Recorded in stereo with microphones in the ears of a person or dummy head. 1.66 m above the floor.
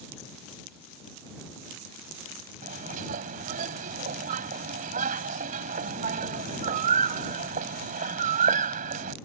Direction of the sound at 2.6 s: 45° right (ahead or behind).